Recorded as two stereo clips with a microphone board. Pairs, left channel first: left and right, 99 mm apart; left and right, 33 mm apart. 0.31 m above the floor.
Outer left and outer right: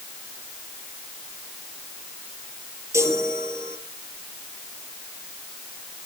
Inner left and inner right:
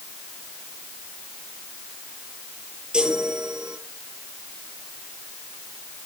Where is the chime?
30° right (ahead or behind), 7.5 m.